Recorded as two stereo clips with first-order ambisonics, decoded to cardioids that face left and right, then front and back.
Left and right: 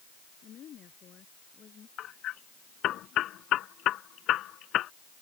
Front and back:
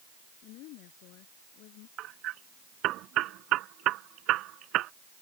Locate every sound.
0.4 s a woman speaking: 30° left; by 1.9 s 25° left
2.0 s hammering: 140° left